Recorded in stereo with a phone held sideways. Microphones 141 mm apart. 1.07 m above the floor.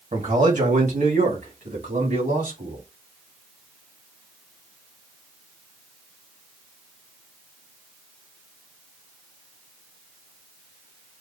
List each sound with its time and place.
0.1 s a man speaking: 60° right (ahead or behind), 1.7 m; by 2.8 s 80° right, 3.5 m